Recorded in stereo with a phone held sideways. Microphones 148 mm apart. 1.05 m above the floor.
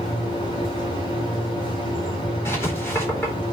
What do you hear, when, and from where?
0.0 s a machine running: 35° left (ahead or behind), 4.5 m
2.5 s writing: 15° left (ahead or behind), 3.5 m